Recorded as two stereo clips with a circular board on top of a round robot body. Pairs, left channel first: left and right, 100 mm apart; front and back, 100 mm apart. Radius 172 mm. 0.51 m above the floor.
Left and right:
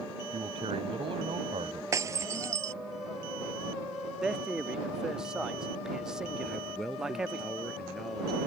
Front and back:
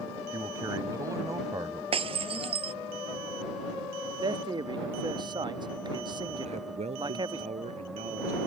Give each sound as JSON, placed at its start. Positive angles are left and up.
{"t": 0.3, "sound": "a man speaking", "azimuth_deg": -120}
{"t": 1.9, "sound": "breaking glass", "azimuth_deg": -150}
{"t": 4.2, "sound": "a man speaking", "azimuth_deg": -170}
{"t": 6.4, "sound": "a man speaking", "azimuth_deg": 180}